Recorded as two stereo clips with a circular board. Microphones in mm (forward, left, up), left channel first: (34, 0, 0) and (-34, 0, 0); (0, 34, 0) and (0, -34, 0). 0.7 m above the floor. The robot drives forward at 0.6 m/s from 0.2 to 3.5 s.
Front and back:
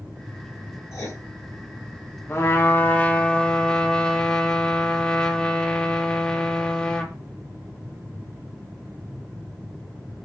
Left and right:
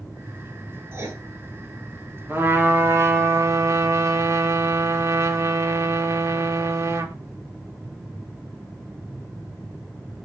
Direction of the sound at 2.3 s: 40° right.